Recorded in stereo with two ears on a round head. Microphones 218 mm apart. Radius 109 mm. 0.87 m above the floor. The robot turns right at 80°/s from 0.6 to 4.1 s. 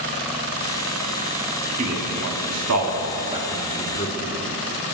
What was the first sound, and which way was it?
A man speaking, 30° right (ahead or behind).